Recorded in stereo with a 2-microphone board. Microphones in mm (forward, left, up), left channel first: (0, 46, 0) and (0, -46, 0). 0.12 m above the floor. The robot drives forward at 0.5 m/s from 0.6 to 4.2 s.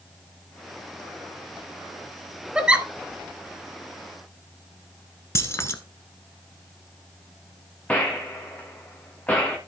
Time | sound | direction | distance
2.5 | a giggle | 15° right (ahead or behind) | 0.7 m
5.3 | keys jangling | 30° left (ahead or behind) | 0.9 m
7.9 | a gunshot | 15° left (ahead or behind) | 2 m